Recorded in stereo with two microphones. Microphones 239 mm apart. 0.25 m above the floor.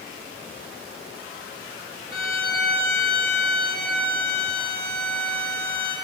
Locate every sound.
2.1 s a violin: 60° left (ahead or behind), 0.7 m